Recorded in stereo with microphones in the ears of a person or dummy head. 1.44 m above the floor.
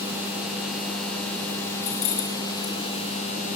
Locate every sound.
1.8 s keys jangling: 40° left (ahead or behind), 6 m